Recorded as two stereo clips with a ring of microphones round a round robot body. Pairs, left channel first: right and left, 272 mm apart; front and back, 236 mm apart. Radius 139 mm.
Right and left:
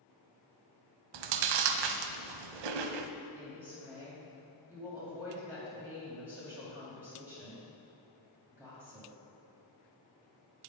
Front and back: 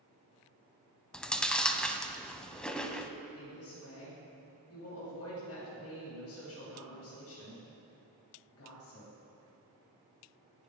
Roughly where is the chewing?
Left.